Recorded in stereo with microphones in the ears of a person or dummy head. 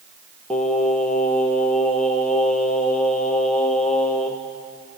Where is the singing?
5° left (ahead or behind), 1.9 m.